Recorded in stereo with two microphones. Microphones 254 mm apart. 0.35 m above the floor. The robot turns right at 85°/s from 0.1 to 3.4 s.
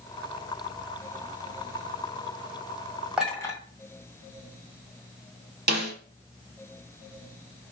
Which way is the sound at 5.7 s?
40° right (ahead or behind).